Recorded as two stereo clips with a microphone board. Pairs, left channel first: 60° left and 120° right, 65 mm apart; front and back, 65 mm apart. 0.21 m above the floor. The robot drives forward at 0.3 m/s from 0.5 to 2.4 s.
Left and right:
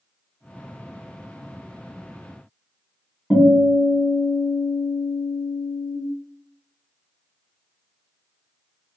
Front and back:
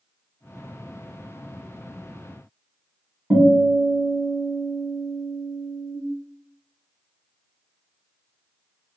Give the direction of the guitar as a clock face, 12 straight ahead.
7 o'clock.